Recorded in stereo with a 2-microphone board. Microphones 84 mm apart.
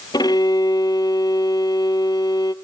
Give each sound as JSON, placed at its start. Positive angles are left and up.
{"t": 0.1, "sound": "a violin", "side_deg": 55, "distance_m": 0.6}